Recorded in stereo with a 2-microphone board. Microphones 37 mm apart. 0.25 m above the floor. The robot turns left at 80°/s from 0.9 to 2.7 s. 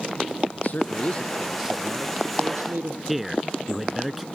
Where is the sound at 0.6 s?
50° left; by 3.0 s 95° right.